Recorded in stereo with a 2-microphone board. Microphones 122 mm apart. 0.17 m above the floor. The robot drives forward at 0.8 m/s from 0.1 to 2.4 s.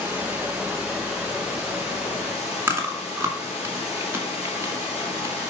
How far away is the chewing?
About 1.7 m.